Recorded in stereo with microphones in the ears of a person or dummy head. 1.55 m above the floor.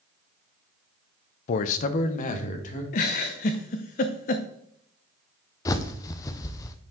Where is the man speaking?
40° left (ahead or behind), 0.5 m; by 2.8 s 45° left (ahead or behind), 1.8 m.